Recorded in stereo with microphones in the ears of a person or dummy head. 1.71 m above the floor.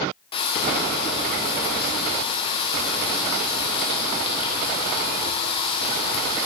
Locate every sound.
0.3 s frying: 35° left (ahead or behind), 1.3 m